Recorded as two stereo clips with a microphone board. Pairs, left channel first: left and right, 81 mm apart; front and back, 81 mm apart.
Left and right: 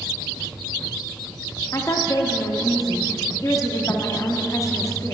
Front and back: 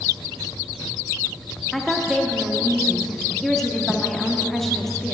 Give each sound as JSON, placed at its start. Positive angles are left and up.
{"t": 1.7, "sound": "a woman speaking", "azimuth_deg": 85, "distance_m": 0.7}